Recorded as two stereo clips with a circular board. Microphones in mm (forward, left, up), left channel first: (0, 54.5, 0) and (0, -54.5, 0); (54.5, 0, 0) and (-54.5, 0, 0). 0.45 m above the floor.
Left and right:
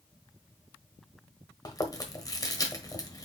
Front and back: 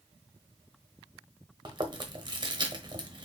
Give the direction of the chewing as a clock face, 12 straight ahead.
7 o'clock.